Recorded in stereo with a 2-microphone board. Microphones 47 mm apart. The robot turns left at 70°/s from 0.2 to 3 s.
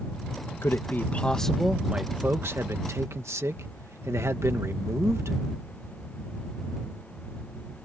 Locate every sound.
0.6 s a man speaking: 65° left; by 5.4 s 100° right